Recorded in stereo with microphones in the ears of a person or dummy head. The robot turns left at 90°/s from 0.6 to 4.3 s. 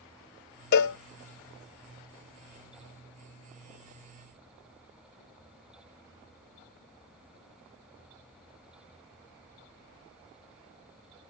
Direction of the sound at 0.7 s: 55° left (ahead or behind).